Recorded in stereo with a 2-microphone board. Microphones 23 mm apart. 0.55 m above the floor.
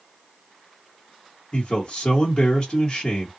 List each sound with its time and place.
1.5 s a man speaking: 35° left (ahead or behind), 1.1 m